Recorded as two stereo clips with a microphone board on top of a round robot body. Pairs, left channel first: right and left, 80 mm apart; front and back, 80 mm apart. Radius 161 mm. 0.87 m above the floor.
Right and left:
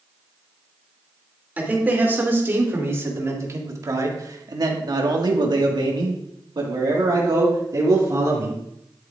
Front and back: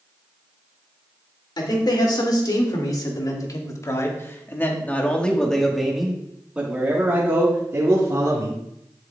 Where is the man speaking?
20° left, 3 m; by 8.6 s 135° left, 2.5 m.